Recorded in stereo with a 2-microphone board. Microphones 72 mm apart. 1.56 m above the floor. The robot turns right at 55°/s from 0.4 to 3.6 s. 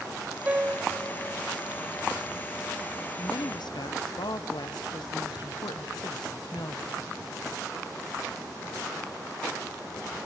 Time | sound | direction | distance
0.5 | a piano | 20° right (ahead or behind) | 1.1 m
3.2 | a woman speaking | 65° left (ahead or behind) | 1.0 m